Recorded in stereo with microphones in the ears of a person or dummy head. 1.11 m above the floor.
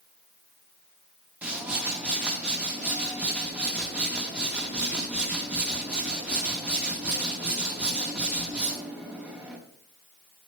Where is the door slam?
No door slam in this recording.